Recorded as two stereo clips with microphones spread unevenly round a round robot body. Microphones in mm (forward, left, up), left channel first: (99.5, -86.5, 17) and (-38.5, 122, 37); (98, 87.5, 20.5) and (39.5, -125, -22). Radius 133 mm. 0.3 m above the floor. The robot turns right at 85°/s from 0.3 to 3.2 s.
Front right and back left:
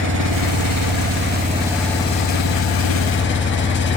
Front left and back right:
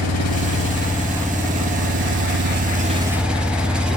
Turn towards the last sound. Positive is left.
turn(degrees=-25)